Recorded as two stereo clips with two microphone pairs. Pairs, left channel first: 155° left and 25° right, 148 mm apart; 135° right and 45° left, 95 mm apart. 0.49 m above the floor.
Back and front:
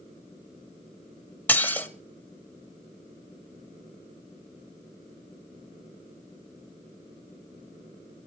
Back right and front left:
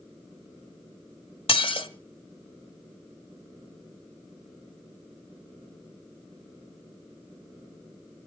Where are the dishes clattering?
130° right, 1.6 m.